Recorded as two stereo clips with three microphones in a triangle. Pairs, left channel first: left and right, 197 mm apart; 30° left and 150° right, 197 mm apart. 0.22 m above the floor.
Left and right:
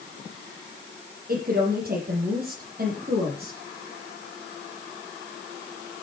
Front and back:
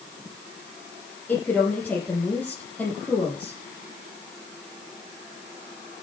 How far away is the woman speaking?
About 8 m.